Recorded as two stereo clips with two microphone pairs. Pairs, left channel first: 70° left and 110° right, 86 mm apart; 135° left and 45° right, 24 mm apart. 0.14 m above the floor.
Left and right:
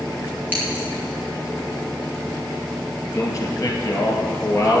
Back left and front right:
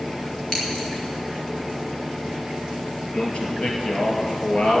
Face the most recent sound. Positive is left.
turn(degrees=120)